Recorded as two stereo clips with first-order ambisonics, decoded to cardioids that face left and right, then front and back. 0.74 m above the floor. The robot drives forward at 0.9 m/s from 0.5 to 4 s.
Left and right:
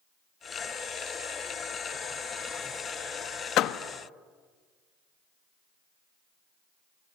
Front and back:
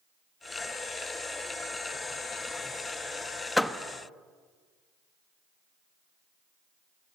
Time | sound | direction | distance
3.6 | a door slam | 80° left | 0.7 m